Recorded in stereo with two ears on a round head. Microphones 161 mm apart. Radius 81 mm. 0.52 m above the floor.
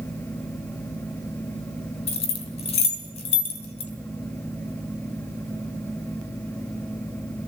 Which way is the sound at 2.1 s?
35° left (ahead or behind).